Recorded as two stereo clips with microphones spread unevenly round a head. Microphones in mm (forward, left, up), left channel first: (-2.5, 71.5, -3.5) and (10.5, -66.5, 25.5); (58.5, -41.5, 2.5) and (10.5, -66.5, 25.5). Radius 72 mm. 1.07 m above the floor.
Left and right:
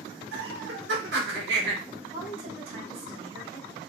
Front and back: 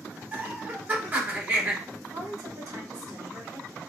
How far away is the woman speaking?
About 3 m.